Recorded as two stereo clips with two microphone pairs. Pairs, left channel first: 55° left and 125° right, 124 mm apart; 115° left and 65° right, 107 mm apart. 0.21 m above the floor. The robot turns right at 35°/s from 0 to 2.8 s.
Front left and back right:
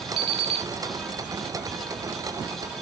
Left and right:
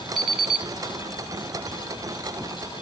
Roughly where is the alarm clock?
Behind right.